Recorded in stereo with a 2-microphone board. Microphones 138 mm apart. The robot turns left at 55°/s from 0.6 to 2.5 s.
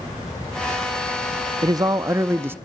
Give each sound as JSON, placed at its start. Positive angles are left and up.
{"t": 1.6, "sound": "a man speaking", "side_deg": -25, "distance_m": 0.5}